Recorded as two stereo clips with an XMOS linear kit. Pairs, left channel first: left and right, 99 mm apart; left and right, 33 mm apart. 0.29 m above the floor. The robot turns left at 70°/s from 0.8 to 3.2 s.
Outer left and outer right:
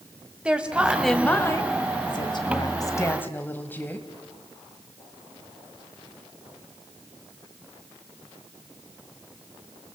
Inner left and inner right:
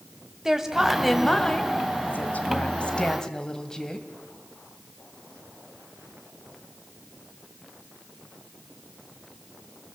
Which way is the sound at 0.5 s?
165° right.